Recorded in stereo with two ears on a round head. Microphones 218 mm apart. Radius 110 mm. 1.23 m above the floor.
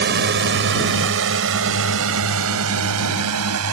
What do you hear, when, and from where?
0.0 s a drone: 45° right (ahead or behind); by 3.7 s 75° right (ahead or behind)